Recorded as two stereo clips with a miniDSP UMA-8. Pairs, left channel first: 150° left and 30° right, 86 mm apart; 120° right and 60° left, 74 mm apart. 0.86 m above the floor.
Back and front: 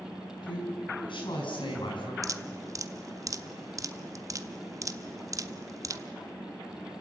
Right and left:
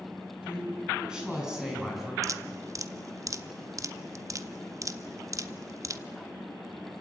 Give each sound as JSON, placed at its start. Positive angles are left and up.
{"t": 0.4, "sound": "a woman speaking", "azimuth_deg": 135, "distance_m": 7.5}
{"t": 2.2, "sound": "dripping", "azimuth_deg": 15, "distance_m": 0.8}